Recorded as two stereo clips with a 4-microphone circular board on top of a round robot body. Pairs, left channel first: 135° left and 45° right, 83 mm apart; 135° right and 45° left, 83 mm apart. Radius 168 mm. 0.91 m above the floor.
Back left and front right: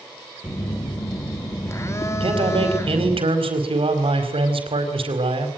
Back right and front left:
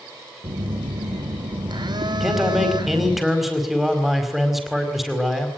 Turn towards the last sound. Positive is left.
turn(degrees=-45)